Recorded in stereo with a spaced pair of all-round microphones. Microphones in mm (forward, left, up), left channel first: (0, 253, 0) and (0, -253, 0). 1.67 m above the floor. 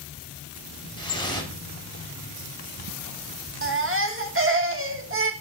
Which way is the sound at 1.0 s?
10° left (ahead or behind).